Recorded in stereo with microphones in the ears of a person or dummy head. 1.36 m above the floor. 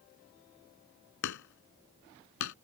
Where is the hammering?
65° left (ahead or behind).